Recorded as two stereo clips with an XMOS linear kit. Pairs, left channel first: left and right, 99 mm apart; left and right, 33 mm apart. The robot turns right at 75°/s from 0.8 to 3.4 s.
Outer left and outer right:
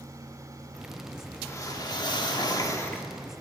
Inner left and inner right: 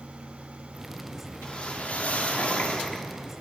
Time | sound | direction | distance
1.4 | a whoosh | 35° left | 1.3 m